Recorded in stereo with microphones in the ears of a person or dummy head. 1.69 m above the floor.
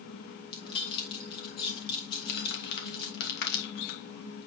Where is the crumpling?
60° left (ahead or behind), 2.5 m.